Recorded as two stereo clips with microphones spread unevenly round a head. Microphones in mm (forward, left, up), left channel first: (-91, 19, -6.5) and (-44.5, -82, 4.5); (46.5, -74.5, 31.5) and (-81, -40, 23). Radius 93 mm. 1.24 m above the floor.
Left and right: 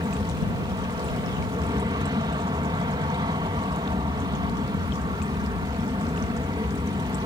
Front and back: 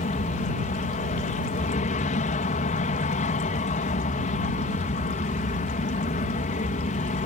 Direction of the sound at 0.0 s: 5° right.